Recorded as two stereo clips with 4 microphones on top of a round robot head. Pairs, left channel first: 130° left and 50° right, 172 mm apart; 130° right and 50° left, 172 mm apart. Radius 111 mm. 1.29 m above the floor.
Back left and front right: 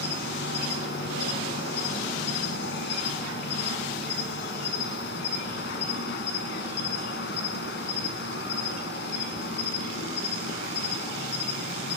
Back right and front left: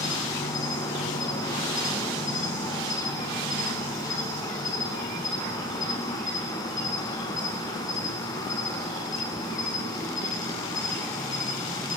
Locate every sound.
0.0 s an insect: 160° left, 2.5 m